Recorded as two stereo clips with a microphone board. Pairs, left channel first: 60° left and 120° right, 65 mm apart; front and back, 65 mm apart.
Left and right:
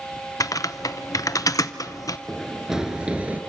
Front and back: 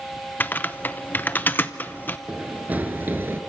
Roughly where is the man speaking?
I don't hear a man speaking.